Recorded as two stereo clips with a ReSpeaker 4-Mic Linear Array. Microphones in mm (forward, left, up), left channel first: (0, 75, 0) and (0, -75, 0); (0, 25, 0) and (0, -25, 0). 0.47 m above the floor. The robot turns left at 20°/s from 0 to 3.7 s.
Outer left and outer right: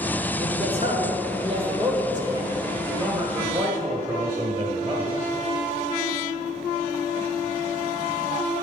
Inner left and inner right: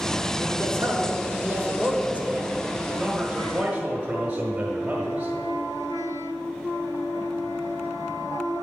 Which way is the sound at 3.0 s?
25° right (ahead or behind).